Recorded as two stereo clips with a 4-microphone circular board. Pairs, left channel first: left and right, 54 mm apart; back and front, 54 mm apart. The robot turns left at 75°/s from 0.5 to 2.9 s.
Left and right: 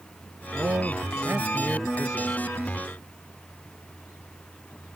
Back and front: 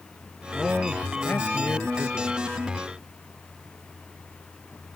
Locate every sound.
0.5 s a man speaking: 70° right; by 2.4 s 155° left